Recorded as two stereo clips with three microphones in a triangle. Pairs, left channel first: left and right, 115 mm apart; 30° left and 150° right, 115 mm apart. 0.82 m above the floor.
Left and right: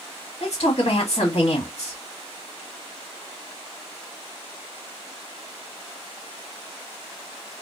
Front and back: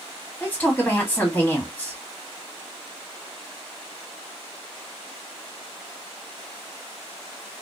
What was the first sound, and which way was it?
A man speaking, 105° left.